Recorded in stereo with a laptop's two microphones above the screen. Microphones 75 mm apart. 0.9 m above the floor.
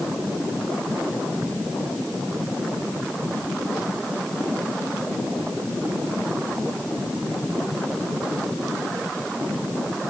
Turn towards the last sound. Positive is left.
No sound to turn to.